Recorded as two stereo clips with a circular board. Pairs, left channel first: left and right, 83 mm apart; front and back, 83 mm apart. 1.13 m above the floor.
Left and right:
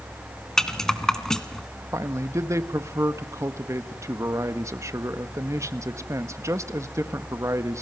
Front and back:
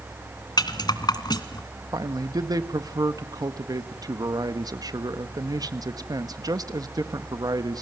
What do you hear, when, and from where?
0.6 s a rattle: 10° left, 1.7 m
1.9 s a man speaking: 140° right, 1.5 m